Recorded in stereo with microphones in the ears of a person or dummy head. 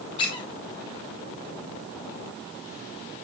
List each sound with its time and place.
0.2 s a squeak: 25° left (ahead or behind), 1.4 m